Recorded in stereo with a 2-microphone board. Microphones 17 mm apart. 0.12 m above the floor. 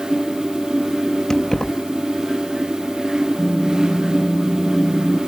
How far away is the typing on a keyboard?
About 2.5 m.